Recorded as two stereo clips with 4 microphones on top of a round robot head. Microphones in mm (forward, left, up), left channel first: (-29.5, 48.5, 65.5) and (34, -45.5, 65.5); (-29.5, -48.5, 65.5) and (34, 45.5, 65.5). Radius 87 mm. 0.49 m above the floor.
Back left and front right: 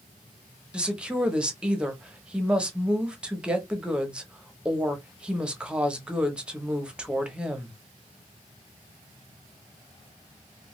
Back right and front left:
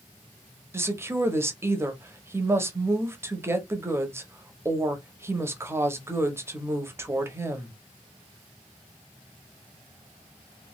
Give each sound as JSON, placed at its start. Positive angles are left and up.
{"t": 0.7, "sound": "a woman speaking", "azimuth_deg": 15, "distance_m": 0.8}